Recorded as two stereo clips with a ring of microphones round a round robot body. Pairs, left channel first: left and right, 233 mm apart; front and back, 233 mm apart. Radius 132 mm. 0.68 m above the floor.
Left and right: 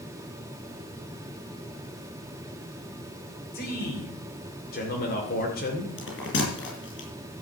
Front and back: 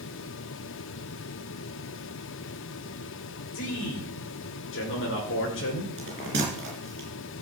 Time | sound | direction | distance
3.5 | a man speaking | 35° left | 2.5 m
6.0 | a bell | 130° left | 5.5 m